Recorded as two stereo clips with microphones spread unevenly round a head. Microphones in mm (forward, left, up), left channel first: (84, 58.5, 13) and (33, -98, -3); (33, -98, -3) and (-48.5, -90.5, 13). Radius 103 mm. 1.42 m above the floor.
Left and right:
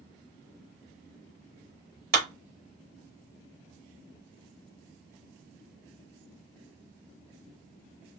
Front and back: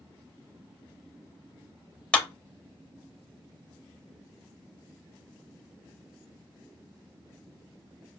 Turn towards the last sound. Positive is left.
turn(degrees=-80)